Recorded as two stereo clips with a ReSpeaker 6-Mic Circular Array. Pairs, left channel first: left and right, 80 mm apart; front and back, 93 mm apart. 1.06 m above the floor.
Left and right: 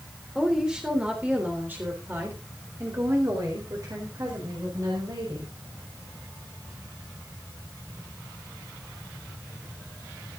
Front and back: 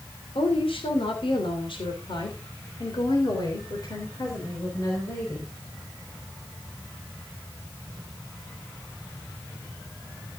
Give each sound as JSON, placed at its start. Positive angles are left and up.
{"t": 0.3, "sound": "a woman speaking", "azimuth_deg": -5, "distance_m": 3.0}